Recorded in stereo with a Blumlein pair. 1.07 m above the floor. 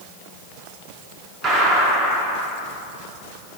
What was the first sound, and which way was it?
A gunshot, 25° right.